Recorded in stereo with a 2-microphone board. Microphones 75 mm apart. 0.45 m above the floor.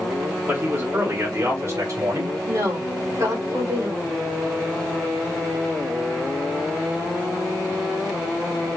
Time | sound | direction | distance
0.5 | a man speaking | 25° right (ahead or behind) | 1.5 m
2.5 | a woman speaking | 45° right (ahead or behind) | 1.5 m